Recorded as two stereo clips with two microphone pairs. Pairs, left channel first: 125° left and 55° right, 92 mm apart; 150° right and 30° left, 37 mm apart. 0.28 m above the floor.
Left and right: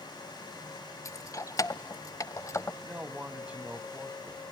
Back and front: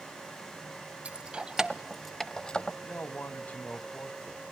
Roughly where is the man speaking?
Behind right.